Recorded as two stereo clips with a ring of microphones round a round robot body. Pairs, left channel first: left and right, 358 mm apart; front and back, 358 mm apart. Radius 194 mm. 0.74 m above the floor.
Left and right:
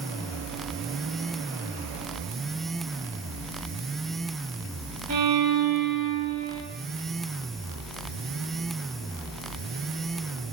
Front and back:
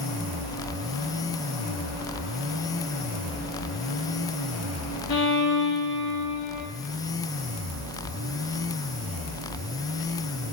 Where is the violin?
45° right, 1.7 m.